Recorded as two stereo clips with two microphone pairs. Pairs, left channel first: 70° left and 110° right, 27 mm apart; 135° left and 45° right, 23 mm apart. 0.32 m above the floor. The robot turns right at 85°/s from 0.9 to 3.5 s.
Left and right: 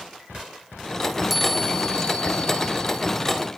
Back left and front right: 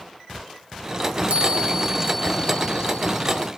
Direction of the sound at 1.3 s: 25° right.